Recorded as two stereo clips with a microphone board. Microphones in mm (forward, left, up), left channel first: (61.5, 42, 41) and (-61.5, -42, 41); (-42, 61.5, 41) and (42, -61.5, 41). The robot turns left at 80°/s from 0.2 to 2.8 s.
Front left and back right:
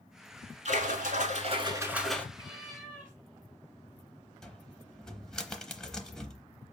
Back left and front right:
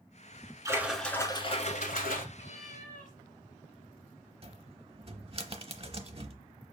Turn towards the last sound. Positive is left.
turn(degrees=-50)